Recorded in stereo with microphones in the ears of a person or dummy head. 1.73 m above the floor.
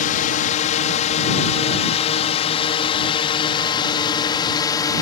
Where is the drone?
45° left (ahead or behind); by 5.0 s 20° left (ahead or behind).